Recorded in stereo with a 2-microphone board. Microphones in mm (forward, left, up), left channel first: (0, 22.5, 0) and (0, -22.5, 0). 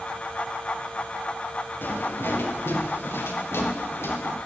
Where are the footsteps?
60° left (ahead or behind), 5.5 m; by 4.4 s 75° left (ahead or behind), 6 m.